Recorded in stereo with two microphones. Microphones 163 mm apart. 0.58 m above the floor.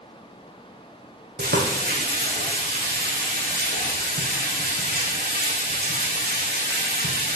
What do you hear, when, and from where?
1.4 s frying: 85° right, 5 m